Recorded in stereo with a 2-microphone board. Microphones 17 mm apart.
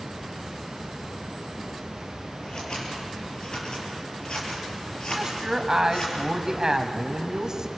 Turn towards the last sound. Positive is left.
turn(degrees=-35)  # may be behind; listen again after turning